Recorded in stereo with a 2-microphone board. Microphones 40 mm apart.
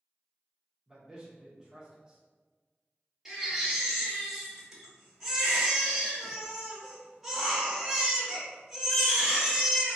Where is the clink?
No clink in this recording.